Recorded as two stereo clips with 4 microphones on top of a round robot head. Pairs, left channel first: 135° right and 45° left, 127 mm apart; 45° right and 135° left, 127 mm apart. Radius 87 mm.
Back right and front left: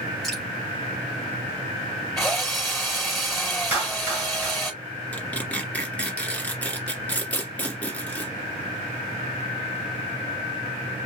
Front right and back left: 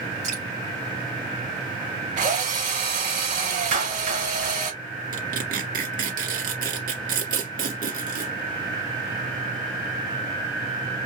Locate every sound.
0.2 s dripping: 135° left, 3 m
2.2 s a drill: 135° left, 4 m
3.7 s a clap: 120° left, 4 m
5.1 s tearing paper: 145° left, 1.8 m